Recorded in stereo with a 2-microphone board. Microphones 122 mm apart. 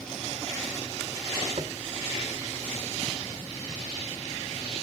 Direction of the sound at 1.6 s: 50° right (ahead or behind).